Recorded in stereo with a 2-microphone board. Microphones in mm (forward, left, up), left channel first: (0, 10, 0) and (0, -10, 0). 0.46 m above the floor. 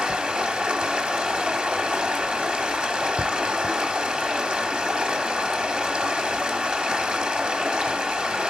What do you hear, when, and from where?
0.0 s running water: 55° right (ahead or behind), 1.1 m